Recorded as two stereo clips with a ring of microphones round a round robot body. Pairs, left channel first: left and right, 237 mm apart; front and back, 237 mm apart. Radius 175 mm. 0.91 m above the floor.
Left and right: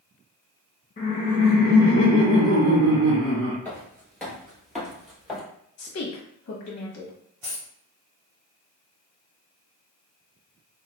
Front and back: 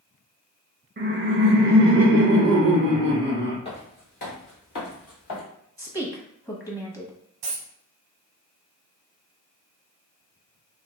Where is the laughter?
145° left, 0.6 m; by 3.5 s 135° right, 1.4 m.